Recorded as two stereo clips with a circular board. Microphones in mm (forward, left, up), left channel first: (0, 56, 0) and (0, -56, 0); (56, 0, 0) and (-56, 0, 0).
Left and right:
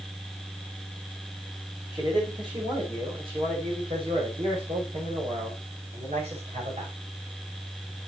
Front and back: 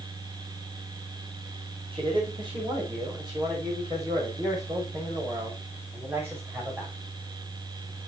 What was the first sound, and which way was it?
A man speaking, 140° right.